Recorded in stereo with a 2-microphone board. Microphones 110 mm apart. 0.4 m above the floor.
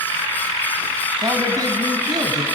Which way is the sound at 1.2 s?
35° right (ahead or behind).